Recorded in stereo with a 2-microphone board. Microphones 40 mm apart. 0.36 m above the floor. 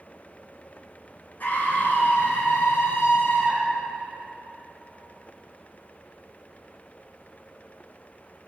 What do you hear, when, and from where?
1.4 s a scream: 50° left (ahead or behind), 3.5 m; by 3.8 s 65° left (ahead or behind), 3.5 m